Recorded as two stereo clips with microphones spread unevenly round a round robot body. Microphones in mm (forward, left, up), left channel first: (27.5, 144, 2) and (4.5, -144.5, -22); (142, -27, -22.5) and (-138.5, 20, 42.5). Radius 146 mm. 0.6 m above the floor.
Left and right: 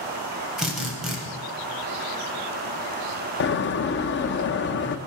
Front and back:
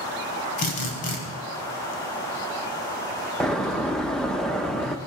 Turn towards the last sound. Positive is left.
turn(degrees=55)